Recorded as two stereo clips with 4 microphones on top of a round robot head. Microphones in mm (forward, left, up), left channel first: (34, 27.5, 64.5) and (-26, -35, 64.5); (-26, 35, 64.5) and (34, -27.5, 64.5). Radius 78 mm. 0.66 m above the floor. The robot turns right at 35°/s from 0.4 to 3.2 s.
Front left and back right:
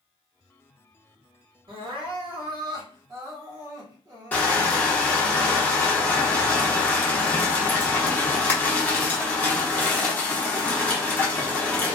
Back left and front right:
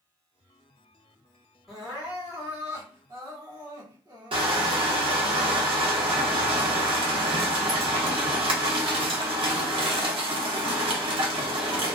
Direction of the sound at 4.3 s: 25° right.